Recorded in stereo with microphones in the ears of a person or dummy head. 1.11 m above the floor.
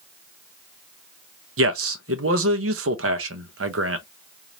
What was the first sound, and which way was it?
A man speaking, 75° right (ahead or behind).